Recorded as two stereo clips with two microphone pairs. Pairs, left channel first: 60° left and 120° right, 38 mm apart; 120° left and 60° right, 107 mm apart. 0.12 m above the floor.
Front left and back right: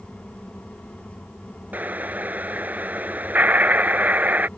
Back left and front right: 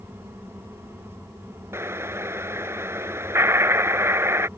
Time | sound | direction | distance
1.7 | an explosion | 115° right | ?